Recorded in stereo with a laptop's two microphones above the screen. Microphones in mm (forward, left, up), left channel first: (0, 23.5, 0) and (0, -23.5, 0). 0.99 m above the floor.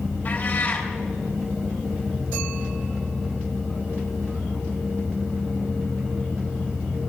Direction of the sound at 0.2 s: 40° left (ahead or behind).